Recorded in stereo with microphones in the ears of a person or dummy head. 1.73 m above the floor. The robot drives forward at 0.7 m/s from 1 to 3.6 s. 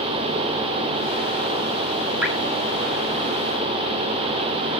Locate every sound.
2.2 s dripping: 5° right (ahead or behind), 1.7 m